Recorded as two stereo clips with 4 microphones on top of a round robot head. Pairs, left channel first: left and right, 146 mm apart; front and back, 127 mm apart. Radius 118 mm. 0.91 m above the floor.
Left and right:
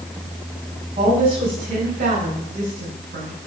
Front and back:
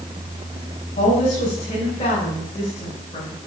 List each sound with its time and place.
1.0 s a woman speaking: 40° right, 5.5 m; by 3.4 s 70° right, 6 m